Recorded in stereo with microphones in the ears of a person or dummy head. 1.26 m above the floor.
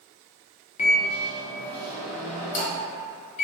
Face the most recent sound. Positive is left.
turn(degrees=35)  # may be behind; listen again after turning